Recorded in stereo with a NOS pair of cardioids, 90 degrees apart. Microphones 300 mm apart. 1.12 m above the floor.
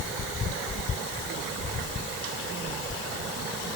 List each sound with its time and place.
Only background noise.